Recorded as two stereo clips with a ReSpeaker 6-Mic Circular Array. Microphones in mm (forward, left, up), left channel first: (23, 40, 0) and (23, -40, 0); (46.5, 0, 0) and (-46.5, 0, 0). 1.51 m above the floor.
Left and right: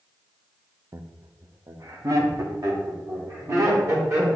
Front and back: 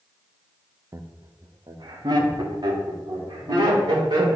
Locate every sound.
0.9 s laughter: 130° right, 0.5 m; by 4.4 s 140° right, 3 m